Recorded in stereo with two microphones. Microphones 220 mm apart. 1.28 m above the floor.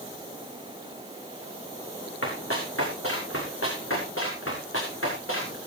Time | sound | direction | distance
2.2 | running footsteps | 80° left | 6 m